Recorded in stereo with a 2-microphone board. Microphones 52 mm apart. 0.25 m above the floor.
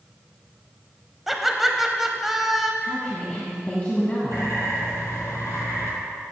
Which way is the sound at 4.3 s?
70° left (ahead or behind).